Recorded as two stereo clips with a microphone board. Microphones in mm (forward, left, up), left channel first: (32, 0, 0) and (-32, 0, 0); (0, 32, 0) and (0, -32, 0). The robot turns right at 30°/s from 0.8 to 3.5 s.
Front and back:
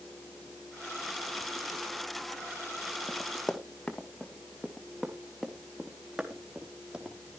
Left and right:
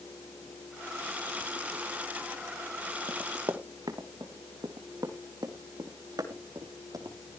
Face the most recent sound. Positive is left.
turn(degrees=-105)